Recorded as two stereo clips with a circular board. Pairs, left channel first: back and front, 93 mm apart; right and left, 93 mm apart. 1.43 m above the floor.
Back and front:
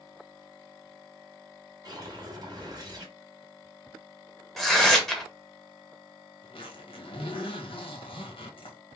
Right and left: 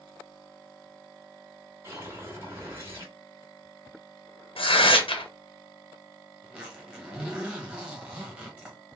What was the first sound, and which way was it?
A whoosh, 35° left.